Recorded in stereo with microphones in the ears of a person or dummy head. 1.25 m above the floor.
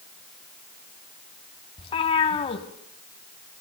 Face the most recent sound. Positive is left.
turn(degrees=30)  # may be behind; listen again after turning